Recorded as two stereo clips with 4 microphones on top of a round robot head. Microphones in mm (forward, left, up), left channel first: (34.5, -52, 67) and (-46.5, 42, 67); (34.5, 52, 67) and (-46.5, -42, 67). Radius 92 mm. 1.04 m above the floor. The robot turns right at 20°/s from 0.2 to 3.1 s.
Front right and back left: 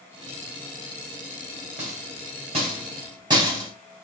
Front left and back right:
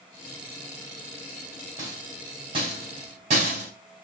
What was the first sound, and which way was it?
A rattle, 160° left.